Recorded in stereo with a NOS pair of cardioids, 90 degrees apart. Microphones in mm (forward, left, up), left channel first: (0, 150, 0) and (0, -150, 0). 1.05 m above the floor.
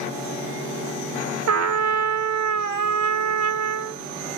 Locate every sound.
1.5 s a trumpet: 60° right, 1.2 m